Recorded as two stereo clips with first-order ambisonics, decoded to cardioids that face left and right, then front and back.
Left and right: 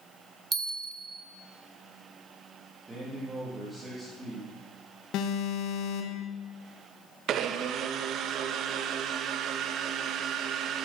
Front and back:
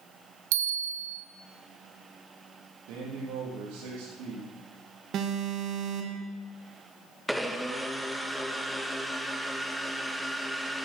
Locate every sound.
0.5 s a bell: 165° right, 1.7 m
2.9 s a man speaking: 165° right, 4.5 m
5.1 s an alarm: 130° left, 2 m
7.3 s a blender: 90° right, 1.1 m